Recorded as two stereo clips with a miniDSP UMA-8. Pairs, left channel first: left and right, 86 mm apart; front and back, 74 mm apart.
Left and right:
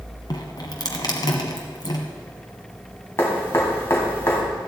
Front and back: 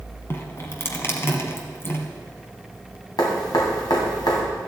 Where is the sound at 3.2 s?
30° left, 3.5 m.